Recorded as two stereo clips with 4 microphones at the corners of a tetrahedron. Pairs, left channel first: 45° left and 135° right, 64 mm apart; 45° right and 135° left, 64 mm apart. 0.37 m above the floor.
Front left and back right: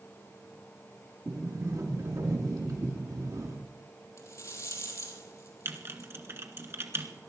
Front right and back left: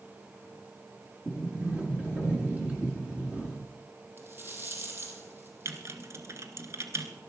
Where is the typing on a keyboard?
175° left, 1.6 m.